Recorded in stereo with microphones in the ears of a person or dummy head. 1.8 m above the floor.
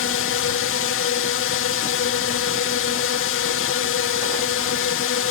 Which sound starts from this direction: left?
A drone, at 0.0 s.